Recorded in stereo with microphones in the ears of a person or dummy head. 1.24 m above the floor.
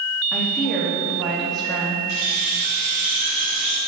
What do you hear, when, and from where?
0.3 s a woman speaking: centre (ahead or behind), 2.5 m
2.1 s keys jangling: 50° left (ahead or behind), 4 m